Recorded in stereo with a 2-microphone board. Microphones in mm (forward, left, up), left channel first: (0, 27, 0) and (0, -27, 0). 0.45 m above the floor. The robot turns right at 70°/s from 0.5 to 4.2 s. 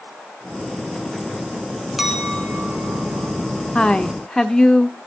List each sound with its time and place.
2.0 s a clink: straight behind, 2.5 m; by 3.3 s 85° right, 2.5 m
3.8 s a woman speaking: 20° left (ahead or behind), 0.9 m; by 5.0 s 10° left (ahead or behind), 0.9 m